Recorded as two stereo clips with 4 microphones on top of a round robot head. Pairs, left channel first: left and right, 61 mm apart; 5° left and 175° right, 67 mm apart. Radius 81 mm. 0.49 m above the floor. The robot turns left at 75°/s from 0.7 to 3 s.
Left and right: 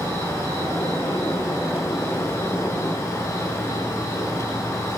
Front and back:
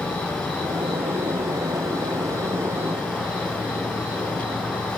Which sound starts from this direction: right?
An insect, at 0.0 s.